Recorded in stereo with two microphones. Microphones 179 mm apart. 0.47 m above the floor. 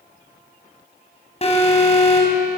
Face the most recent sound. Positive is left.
turn(degrees=35)  # may be behind; listen again after turning